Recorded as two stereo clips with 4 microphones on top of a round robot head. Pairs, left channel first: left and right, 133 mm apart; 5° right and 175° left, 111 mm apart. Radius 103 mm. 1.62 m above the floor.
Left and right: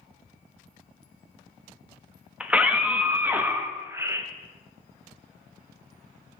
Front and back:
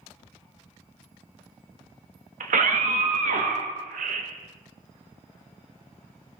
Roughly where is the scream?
Behind.